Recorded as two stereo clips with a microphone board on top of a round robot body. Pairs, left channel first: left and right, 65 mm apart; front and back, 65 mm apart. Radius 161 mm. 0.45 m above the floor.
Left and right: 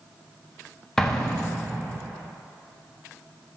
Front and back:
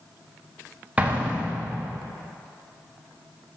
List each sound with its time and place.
1.0 s an explosion: 155° left, 1.3 m